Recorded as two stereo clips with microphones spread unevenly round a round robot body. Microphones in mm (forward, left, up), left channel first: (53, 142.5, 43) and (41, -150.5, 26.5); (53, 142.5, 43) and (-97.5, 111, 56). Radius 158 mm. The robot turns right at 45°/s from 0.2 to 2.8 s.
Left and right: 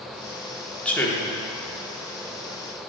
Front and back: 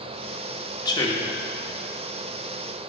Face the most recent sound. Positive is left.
turn(degrees=85)